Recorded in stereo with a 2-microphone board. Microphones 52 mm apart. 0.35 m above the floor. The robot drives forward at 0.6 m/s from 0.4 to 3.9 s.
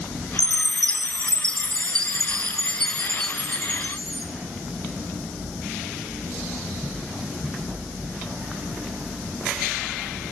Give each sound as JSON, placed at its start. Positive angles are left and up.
{"t": 0.4, "sound": "a chime", "side_deg": 20, "distance_m": 0.9}